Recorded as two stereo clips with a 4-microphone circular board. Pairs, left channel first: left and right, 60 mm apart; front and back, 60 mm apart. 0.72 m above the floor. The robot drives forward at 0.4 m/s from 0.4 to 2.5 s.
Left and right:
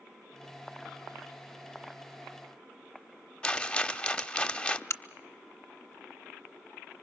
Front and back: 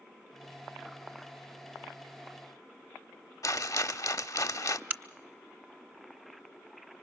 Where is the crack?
120° left, 0.8 m.